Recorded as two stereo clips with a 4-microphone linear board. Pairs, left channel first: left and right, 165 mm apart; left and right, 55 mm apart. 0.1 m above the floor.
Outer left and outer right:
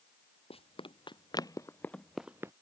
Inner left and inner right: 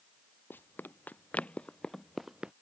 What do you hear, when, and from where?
0.5 s running footsteps: 35° left (ahead or behind); by 2.5 s 20° right (ahead or behind)